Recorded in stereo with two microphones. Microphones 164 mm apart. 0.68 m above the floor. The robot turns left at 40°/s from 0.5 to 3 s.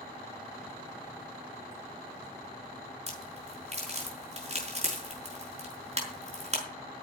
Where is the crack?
40° right (ahead or behind), 5.5 m.